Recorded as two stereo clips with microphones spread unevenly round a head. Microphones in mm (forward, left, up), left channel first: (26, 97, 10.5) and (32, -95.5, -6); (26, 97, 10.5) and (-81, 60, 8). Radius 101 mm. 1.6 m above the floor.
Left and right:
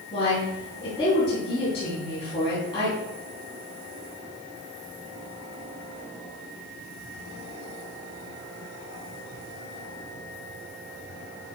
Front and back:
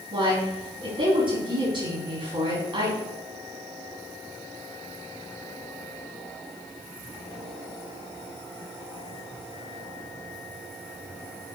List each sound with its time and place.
0.1 s a woman speaking: 160° left, 4 m